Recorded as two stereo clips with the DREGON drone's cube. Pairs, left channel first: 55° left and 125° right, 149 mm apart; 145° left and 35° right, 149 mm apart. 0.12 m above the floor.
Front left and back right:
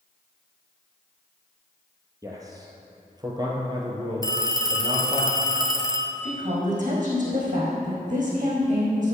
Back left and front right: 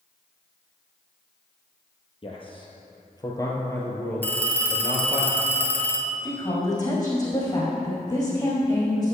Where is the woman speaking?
155° right, 4 m.